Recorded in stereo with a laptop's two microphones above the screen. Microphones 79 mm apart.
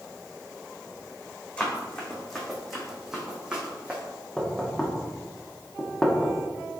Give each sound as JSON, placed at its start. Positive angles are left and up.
{"t": 1.6, "sound": "running footsteps", "side_deg": 15, "distance_m": 2.5}
{"t": 4.4, "sound": "knocking", "side_deg": 5, "distance_m": 0.7}